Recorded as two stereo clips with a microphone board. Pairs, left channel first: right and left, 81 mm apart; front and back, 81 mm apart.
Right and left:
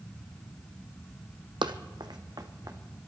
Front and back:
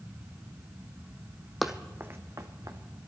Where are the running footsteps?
90° left, 0.9 m; by 2.8 s 135° left, 2 m.